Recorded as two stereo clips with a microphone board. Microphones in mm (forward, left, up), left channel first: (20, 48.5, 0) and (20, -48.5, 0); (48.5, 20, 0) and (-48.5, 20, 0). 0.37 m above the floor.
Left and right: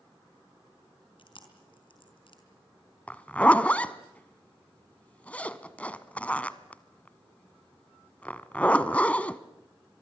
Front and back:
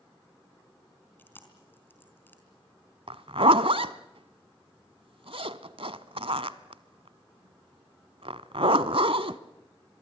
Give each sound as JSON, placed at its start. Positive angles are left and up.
{"t": 1.2, "sound": "chewing", "azimuth_deg": 70, "distance_m": 4.0}
{"t": 3.1, "sound": "a zipper", "azimuth_deg": 165, "distance_m": 0.9}